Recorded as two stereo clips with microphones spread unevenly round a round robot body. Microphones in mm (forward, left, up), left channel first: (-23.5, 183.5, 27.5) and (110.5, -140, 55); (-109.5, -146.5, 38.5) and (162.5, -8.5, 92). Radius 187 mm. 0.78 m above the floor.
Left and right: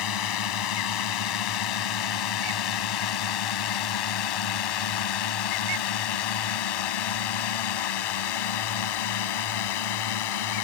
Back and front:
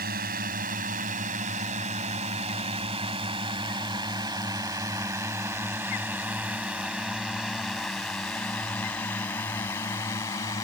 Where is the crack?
I don't hear a crack.